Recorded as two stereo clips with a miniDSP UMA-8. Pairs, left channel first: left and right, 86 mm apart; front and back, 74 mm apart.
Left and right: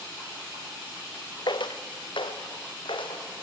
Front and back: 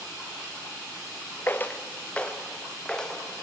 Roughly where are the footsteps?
Ahead left.